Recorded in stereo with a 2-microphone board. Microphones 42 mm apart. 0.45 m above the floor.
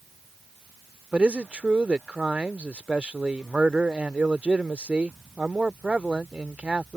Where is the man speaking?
30° right (ahead or behind).